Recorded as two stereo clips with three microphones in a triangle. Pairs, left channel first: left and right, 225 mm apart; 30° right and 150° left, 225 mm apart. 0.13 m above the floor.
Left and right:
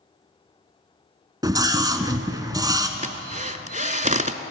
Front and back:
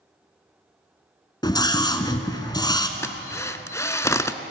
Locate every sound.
1.4 s a scream: 55° right, 1.0 m
3.0 s a drill: 100° right, 0.6 m